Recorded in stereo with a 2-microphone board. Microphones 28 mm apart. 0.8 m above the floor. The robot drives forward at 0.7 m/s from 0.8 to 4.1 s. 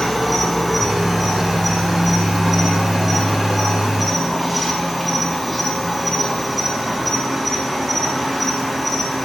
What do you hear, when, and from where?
0.0 s an insect: 5° left (ahead or behind), 3 m; by 9.2 s centre (ahead or behind), 5 m